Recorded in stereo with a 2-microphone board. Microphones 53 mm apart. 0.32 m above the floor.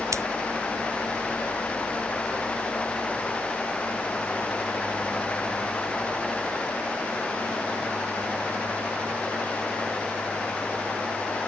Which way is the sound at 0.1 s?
70° right (ahead or behind).